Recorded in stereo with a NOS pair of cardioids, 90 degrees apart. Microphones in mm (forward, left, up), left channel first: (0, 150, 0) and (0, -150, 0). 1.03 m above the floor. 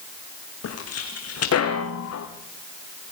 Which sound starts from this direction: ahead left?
Footsteps, at 0.6 s.